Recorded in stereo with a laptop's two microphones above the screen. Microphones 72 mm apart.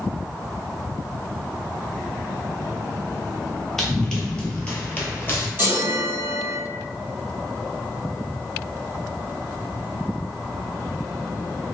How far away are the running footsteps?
About 1.1 m.